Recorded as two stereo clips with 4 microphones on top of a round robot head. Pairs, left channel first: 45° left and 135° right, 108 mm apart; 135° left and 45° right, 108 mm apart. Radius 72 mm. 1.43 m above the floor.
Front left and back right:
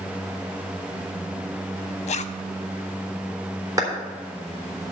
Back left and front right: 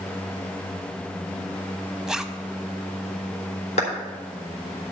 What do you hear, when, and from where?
2.1 s a zipper: 40° left, 0.6 m
3.8 s a clap: 160° left, 3.5 m